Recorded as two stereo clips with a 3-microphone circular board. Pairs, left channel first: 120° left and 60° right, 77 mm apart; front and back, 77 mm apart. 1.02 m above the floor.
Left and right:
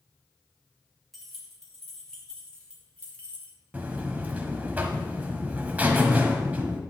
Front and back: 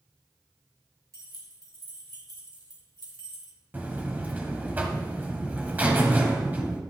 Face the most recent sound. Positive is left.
turn(degrees=-120)